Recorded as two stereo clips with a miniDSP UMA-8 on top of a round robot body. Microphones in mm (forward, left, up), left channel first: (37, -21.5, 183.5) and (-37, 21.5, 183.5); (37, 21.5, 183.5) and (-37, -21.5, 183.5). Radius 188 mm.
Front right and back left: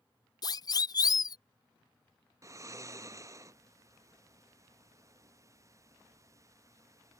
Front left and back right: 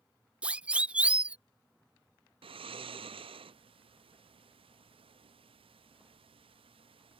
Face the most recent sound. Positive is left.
turn(degrees=-155)